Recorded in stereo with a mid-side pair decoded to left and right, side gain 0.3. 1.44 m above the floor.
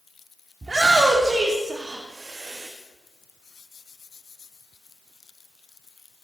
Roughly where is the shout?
Ahead right.